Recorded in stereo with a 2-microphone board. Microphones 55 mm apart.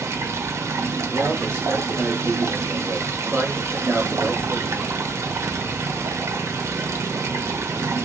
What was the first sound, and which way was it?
Running water, 60° right (ahead or behind).